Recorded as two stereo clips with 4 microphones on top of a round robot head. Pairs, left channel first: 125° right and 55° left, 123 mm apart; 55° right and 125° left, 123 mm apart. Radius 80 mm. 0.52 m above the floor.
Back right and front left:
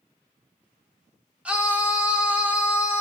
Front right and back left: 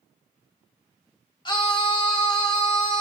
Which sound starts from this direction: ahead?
A scream, at 1.4 s.